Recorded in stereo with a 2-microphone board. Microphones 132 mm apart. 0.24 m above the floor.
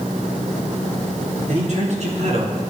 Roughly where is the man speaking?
Right.